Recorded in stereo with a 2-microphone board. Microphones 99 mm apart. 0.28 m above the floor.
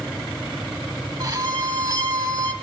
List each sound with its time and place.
1.2 s a violin: 40° right (ahead or behind), 1.1 m